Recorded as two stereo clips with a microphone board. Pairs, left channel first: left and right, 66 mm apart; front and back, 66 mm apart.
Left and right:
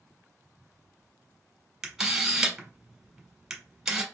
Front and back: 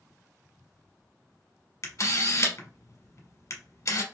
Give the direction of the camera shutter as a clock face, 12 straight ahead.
12 o'clock.